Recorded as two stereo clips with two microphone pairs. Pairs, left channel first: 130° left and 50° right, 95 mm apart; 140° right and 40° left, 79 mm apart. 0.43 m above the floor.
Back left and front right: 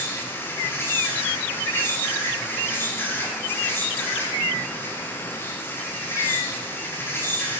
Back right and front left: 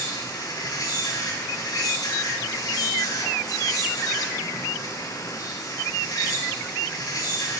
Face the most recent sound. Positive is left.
turn(degrees=-170)